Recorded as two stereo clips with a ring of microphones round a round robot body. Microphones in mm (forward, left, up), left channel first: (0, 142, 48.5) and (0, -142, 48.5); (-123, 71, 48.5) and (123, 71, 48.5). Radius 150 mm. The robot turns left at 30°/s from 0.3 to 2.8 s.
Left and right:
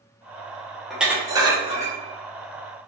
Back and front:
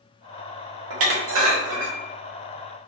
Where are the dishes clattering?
Straight ahead, 0.6 m; by 2.0 s 30° right, 0.6 m.